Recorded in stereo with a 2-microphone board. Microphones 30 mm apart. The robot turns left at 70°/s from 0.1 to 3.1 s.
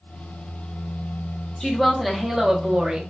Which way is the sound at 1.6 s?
35° left.